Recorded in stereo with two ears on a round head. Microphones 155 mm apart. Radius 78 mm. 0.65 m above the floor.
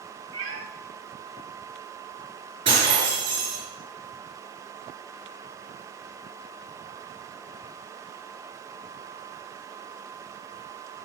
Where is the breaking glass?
30° right (ahead or behind), 5 m.